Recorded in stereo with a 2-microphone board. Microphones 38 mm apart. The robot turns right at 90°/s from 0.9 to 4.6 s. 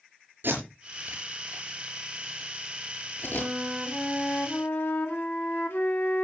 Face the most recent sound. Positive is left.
turn(degrees=75)